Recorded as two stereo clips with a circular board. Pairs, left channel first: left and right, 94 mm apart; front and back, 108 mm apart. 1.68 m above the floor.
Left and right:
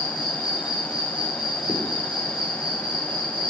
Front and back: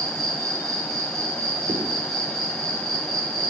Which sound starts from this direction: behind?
An insect, at 0.0 s.